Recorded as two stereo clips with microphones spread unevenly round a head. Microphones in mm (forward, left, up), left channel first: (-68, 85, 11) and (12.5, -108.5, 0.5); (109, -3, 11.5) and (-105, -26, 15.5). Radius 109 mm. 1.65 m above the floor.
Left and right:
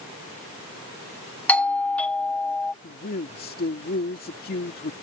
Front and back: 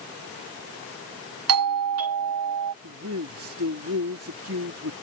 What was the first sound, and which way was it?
A doorbell, 165° right.